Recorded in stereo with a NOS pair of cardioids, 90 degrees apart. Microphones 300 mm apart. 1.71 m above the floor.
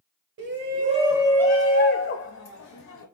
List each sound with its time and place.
0.4 s a shout: 40° right, 1.0 m; by 3.0 s 70° left, 1.4 m